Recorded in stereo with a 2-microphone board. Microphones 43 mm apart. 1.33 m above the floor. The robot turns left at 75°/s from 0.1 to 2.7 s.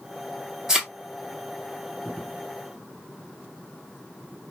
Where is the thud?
10° right (ahead or behind), 1.0 m; by 0.9 s 20° right (ahead or behind), 1.0 m.